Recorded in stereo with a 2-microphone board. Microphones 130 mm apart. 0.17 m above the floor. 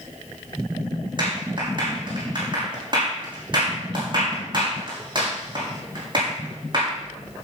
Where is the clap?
40° right (ahead or behind), 6.5 m.